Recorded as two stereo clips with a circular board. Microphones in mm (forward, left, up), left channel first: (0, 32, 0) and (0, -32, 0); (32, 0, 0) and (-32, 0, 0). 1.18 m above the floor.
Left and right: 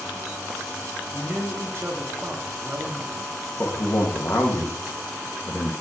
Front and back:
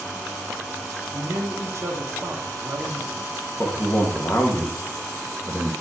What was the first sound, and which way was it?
A man speaking, 135° right.